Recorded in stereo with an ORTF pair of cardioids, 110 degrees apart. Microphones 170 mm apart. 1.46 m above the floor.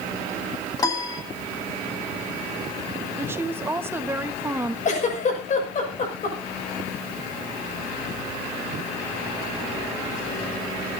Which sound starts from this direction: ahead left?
A giggle, at 4.8 s.